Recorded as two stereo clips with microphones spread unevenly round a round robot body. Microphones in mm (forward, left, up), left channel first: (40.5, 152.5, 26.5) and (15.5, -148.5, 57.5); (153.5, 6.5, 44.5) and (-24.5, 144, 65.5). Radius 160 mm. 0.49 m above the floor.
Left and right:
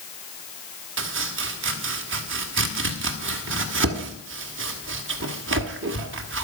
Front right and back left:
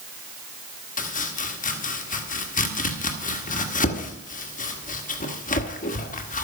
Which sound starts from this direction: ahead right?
Chopping, at 1.0 s.